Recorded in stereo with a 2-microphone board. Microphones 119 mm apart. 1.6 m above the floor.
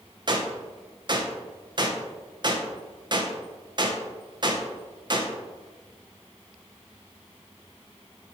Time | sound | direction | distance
0.3 | a gunshot | 40° right (ahead or behind) | 0.7 m